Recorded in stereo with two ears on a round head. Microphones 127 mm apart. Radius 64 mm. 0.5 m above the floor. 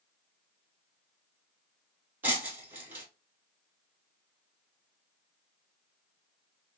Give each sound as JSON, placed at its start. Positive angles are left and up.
{"t": 2.2, "sound": "breaking glass", "side_deg": -15, "distance_m": 1.7}